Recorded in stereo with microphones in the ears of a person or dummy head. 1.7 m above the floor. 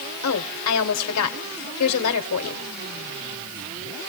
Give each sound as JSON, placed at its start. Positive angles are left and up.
{"t": 0.2, "sound": "a woman speaking", "side_deg": 90, "distance_m": 1.1}